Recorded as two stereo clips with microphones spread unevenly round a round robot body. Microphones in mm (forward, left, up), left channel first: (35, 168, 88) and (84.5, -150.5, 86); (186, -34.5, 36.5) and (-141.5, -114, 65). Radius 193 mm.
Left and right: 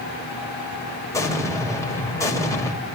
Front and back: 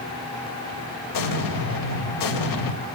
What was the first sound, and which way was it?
An explosion, 20° left.